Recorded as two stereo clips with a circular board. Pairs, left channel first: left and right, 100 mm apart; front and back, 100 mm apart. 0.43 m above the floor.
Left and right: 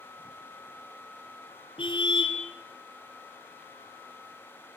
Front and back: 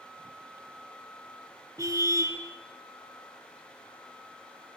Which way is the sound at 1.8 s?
125° left.